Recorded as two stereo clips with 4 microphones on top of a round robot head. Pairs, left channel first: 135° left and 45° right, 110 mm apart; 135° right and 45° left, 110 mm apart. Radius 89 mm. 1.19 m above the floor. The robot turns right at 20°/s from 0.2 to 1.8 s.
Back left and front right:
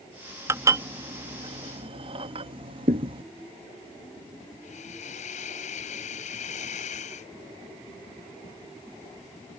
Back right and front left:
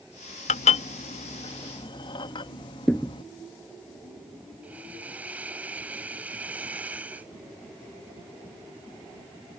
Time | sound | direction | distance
0.5 | dishes clattering | 110° right | ?
2.9 | a thud | 55° right | ?
4.6 | a hiss | 120° left | ?